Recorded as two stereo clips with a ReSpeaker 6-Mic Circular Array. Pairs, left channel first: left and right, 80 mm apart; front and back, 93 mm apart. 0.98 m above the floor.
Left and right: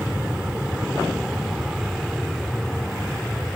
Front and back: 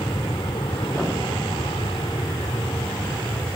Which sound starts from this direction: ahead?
An aircraft, at 0.0 s.